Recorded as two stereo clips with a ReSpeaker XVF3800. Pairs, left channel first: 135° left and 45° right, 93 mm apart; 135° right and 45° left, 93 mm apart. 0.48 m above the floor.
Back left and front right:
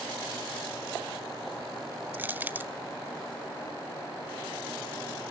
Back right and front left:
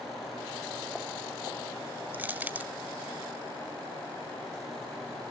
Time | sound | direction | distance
2.1 | crushing | 5° right | 0.9 m